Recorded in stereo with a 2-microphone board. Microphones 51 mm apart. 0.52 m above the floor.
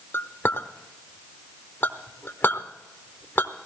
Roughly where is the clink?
Left.